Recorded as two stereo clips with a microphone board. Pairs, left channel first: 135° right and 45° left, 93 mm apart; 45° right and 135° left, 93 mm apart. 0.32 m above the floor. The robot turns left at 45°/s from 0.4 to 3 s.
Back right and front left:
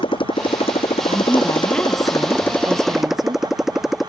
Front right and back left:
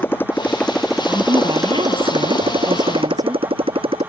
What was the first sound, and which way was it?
A motorcycle, 110° right.